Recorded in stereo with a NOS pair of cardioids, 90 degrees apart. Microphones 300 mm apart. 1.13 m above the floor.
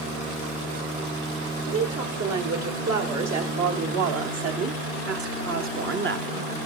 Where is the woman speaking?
60° right, 3.5 m; by 6.5 s 35° right, 1.0 m.